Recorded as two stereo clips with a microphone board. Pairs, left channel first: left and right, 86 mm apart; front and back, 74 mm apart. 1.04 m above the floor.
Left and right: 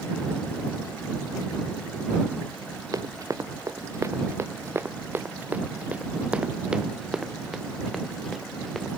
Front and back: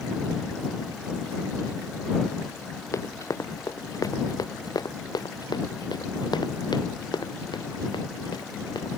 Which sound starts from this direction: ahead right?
Running footsteps, at 2.9 s.